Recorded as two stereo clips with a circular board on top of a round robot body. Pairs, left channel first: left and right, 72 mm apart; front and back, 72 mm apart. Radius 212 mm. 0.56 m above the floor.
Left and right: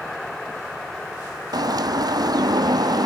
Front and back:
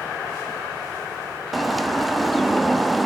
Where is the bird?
90° right, 1.7 m.